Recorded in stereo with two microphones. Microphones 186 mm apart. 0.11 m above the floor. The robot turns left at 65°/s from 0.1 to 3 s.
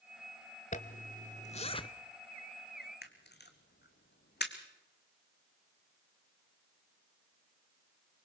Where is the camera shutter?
60° left (ahead or behind), 1.6 m.